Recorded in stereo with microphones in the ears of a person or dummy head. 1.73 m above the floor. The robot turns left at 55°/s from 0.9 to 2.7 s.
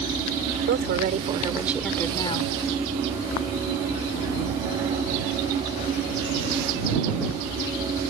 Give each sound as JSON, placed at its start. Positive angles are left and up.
{"t": 0.7, "sound": "a woman speaking", "azimuth_deg": -130}